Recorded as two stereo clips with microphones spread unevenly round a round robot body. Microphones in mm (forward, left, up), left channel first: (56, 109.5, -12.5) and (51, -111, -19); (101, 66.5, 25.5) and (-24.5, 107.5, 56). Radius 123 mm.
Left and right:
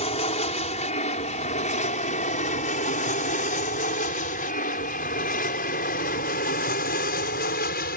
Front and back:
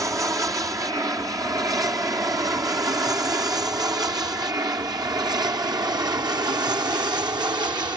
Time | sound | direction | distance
0.0 | an aircraft | 95° left | ?